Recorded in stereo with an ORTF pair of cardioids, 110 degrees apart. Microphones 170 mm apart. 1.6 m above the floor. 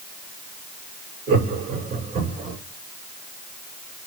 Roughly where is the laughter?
Right.